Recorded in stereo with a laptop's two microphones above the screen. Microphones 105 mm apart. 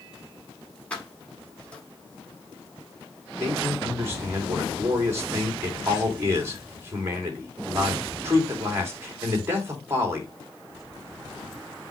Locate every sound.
0.9 s keys jangling: 10° left (ahead or behind), 1.6 m
3.4 s a man speaking: 25° right (ahead or behind), 2 m